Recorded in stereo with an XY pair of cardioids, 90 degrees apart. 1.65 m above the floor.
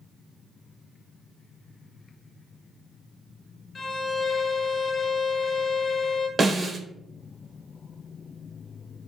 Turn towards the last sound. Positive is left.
turn(degrees=-35)